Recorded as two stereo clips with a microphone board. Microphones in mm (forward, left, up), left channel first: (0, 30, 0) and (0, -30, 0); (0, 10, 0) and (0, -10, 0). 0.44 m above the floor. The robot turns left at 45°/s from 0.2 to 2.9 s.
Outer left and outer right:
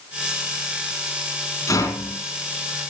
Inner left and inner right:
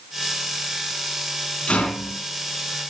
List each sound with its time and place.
1.7 s a rattle: 70° left (ahead or behind), 3.5 m; by 2.2 s 75° left (ahead or behind), 3.5 m